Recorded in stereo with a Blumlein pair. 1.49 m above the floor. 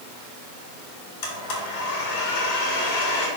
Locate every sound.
1.2 s a blender: 45° left, 3.5 m